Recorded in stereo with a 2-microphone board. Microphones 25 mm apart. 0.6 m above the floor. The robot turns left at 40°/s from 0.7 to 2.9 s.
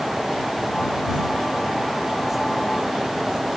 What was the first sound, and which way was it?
Only background noise.